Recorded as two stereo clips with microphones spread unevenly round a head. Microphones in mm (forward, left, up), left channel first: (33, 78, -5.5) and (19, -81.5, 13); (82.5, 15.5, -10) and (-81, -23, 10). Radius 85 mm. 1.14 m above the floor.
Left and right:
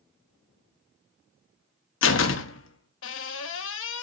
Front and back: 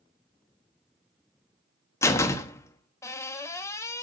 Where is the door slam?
90° left, 1.0 m.